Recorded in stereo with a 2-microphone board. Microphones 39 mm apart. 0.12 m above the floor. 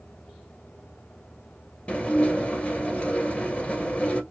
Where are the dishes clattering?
35° left (ahead or behind), 1.4 m.